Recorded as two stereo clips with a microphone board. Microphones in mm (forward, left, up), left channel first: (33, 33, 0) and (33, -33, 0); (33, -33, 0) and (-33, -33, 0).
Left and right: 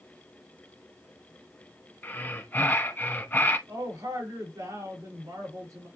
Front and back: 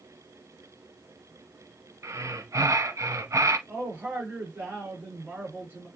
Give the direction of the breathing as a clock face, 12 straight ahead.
7 o'clock.